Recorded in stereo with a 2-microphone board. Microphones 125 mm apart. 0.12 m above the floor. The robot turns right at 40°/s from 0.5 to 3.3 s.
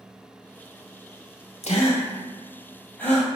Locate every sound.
1.6 s a gasp: 55° left (ahead or behind), 2 m; by 3.3 s centre (ahead or behind), 2 m